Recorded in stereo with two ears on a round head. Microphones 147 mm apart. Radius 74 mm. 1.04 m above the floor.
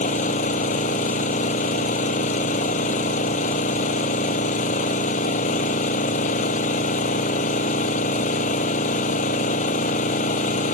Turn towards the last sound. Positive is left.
turn(degrees=45)  # may be behind; listen again after turning